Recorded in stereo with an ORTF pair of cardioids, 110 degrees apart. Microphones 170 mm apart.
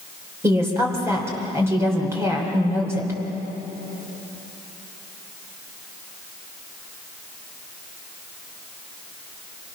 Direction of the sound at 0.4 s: 15° right.